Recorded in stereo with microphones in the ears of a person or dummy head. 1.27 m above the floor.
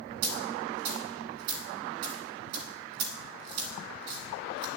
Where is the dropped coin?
55° right (ahead or behind), 1.3 m.